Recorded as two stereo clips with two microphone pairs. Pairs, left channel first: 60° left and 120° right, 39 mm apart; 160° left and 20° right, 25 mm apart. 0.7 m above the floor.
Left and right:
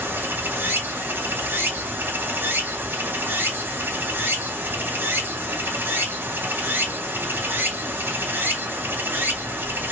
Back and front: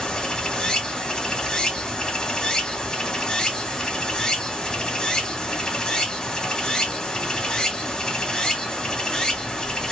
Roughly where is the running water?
Behind right.